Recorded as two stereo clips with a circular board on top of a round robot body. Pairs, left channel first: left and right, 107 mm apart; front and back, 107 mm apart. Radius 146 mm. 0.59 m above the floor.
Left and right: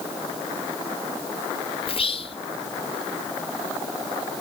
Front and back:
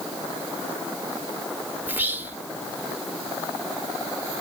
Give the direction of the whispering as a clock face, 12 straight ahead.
8 o'clock.